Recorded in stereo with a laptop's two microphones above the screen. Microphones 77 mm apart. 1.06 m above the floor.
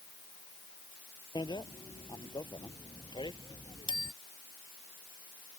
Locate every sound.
1.4 s a bicycle bell: 90° left; by 4.1 s 80° left